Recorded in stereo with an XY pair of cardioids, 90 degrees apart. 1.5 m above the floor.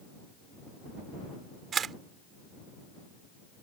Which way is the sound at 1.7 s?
60° right.